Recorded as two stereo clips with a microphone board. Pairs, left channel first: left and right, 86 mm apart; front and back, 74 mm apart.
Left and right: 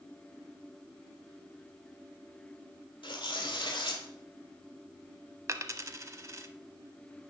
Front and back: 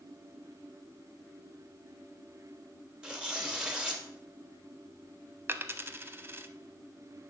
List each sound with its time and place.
3.0 s tearing paper: 100° left, 1.6 m
5.5 s a dropped coin: 130° right, 0.6 m